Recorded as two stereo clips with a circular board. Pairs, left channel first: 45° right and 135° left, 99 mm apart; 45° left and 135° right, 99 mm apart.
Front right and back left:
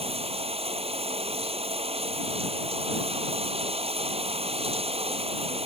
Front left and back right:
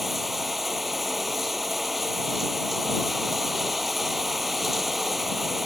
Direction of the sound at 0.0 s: 135° left.